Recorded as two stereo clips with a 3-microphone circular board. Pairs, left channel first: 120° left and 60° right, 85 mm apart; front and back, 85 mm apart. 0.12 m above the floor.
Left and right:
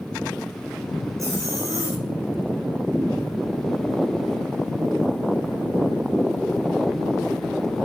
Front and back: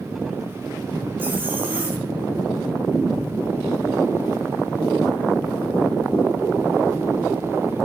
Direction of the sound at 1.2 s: 110° right.